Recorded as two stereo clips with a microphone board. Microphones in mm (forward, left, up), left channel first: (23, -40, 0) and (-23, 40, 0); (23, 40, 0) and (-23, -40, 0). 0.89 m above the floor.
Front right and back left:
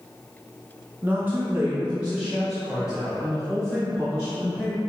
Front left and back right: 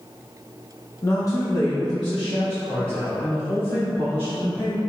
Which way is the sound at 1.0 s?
75° left.